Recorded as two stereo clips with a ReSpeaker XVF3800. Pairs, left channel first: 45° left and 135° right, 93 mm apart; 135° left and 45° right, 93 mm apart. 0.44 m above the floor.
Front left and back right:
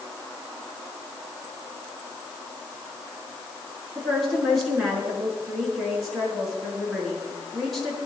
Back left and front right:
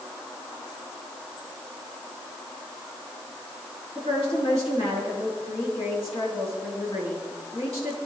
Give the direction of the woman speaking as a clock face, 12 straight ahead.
8 o'clock.